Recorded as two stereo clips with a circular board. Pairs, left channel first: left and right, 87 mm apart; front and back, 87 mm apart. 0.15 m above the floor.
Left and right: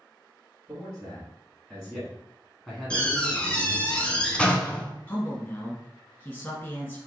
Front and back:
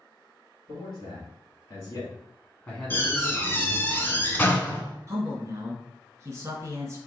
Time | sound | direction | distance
0.7 | a man speaking | 10° right | 1.7 m
2.9 | a door slam | 30° left | 0.7 m
5.1 | a man speaking | 140° left | 1.5 m